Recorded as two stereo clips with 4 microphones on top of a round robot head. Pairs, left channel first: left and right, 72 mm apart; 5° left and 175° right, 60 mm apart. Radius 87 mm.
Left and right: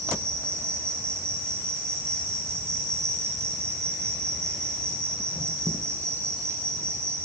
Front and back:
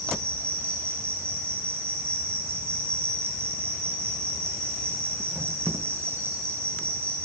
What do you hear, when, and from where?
0.0 s an insect: 135° right, 1.1 m